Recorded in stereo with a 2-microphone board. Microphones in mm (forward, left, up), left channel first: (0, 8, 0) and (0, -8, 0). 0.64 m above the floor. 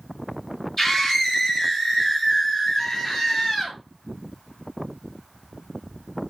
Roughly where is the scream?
Left.